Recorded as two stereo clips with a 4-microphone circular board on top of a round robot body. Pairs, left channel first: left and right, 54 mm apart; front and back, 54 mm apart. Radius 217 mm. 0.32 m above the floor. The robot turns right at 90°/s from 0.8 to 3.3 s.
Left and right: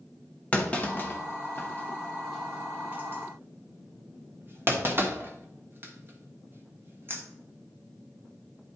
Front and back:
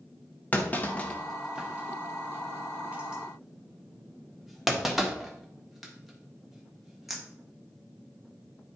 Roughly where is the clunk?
Ahead left.